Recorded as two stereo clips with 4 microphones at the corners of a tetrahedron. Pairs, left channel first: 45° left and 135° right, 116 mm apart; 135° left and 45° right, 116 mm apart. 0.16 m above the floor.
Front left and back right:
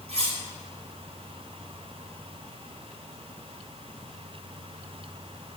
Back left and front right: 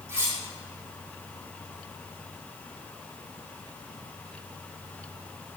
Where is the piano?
No piano in this recording.